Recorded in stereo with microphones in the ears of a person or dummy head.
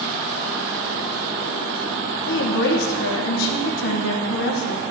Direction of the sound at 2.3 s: 65° left (ahead or behind).